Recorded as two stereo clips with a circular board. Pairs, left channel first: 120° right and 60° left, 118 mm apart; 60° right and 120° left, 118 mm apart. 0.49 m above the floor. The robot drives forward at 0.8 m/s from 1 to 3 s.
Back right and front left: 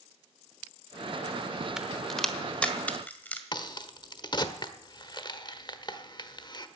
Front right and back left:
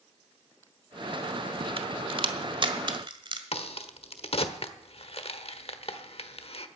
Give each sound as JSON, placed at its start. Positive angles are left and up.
{"t": 1.8, "sound": "a crack", "azimuth_deg": 145, "distance_m": 0.9}
{"t": 3.5, "sound": "a crack", "azimuth_deg": -75, "distance_m": 1.1}